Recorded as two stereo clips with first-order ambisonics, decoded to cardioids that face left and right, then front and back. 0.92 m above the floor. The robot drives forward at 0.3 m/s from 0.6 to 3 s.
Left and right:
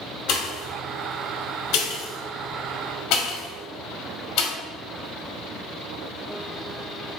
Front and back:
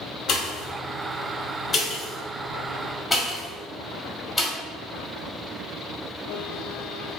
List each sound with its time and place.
0.3 s a pop: 50° left, 1.2 m; by 4.5 s 90° left, 1.0 m